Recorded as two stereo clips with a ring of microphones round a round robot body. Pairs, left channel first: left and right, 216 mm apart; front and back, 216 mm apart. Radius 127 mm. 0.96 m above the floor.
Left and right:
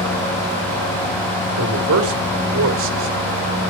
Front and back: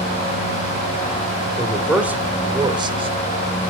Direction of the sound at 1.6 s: 90° right.